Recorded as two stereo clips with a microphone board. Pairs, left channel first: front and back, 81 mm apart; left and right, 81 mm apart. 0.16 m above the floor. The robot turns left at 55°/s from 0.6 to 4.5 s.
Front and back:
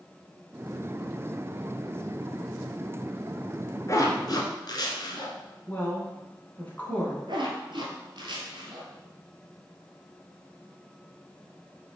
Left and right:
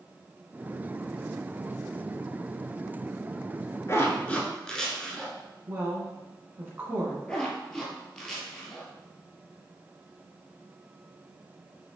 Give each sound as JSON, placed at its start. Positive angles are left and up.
{"t": 3.9, "sound": "a zipper", "azimuth_deg": 40, "distance_m": 0.9}
{"t": 5.7, "sound": "a woman speaking", "azimuth_deg": -50, "distance_m": 1.4}
{"t": 7.3, "sound": "a zipper", "azimuth_deg": 170, "distance_m": 1.1}